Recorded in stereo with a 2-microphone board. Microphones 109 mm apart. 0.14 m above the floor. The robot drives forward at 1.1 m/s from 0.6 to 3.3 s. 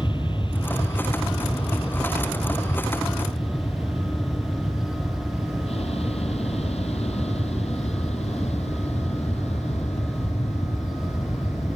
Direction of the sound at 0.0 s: 45° left (ahead or behind).